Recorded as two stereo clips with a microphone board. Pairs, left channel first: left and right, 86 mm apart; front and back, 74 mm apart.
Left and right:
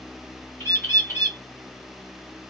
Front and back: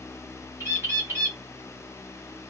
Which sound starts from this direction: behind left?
A bird, at 0.6 s.